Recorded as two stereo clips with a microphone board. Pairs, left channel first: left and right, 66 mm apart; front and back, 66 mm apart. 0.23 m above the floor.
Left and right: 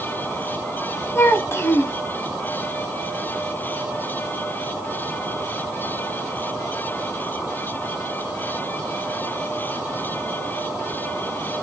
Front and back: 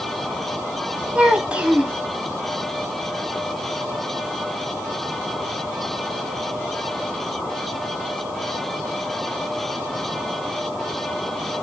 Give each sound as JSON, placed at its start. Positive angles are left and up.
{"t": 1.1, "sound": "a child speaking", "azimuth_deg": 115, "distance_m": 0.6}